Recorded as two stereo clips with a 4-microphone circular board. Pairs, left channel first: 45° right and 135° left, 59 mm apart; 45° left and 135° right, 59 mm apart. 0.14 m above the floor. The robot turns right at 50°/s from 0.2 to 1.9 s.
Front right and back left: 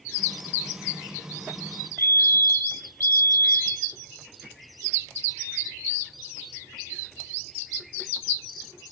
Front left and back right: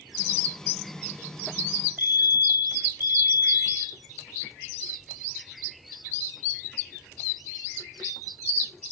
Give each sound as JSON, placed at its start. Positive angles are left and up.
{"t": 2.0, "sound": "a fire alarm", "azimuth_deg": -85, "distance_m": 5.0}